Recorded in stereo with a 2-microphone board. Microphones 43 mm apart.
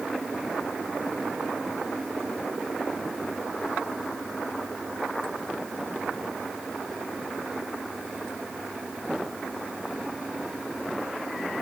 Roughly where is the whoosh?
No whoosh in this recording.